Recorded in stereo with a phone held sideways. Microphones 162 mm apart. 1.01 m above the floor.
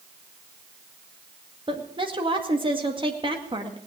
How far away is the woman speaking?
About 2.0 m.